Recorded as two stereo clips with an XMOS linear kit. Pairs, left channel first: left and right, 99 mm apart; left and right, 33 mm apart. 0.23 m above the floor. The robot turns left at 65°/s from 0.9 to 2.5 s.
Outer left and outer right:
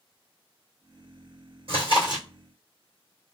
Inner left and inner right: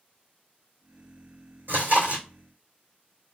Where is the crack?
No crack in this recording.